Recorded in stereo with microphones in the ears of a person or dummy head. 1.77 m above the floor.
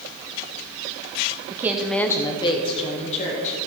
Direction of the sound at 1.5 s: 20° right (ahead or behind).